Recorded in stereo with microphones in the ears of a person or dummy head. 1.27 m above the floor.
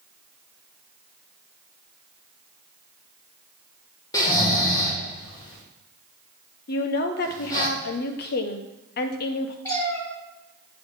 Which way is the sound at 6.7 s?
55° left (ahead or behind).